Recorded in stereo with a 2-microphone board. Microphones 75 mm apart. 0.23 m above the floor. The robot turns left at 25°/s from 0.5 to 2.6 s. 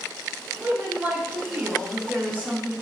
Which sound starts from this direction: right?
A woman speaking, at 0.6 s.